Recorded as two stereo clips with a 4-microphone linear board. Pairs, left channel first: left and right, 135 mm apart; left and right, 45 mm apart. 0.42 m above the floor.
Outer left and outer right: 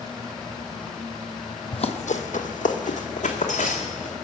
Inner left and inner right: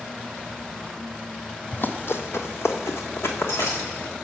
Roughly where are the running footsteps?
Left.